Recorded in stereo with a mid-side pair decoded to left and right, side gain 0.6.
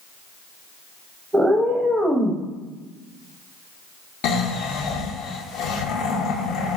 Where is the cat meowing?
10° right, 0.6 m.